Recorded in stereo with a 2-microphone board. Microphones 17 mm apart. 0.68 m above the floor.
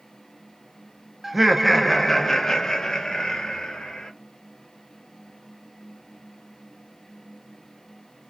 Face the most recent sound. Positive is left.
turn(degrees=60)  # may be behind; listen again after turning